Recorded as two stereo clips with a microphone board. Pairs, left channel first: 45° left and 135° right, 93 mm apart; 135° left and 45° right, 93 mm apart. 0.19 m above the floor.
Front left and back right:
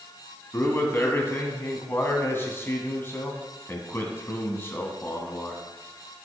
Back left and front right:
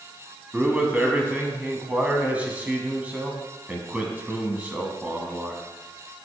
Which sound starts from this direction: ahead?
A man speaking, at 0.5 s.